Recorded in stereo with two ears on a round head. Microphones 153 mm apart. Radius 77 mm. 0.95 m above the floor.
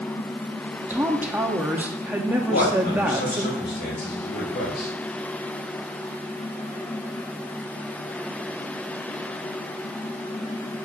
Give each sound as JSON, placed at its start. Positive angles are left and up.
{"t": 0.9, "sound": "a woman speaking", "side_deg": -10, "distance_m": 1.4}
{"t": 2.4, "sound": "a man speaking", "side_deg": 65, "distance_m": 4.5}